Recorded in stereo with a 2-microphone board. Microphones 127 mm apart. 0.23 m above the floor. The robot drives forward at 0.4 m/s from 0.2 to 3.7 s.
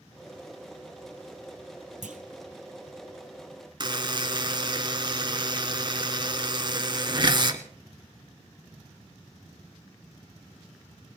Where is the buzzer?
40° right (ahead or behind), 1.1 m.